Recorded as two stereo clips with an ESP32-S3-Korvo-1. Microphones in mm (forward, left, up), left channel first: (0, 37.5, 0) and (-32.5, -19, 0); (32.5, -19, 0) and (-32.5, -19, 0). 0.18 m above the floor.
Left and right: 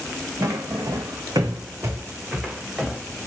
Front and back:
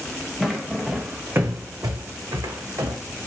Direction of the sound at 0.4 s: 90° right.